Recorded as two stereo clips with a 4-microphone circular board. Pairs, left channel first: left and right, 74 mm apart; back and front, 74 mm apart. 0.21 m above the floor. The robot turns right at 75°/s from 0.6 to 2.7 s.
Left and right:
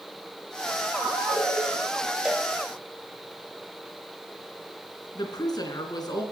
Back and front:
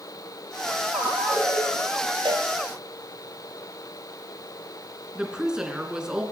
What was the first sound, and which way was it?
A ringtone, 35° left.